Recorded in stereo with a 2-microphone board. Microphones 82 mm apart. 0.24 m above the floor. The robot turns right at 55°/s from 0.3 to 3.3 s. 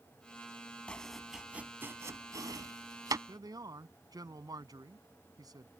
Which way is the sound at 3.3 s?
55° right (ahead or behind).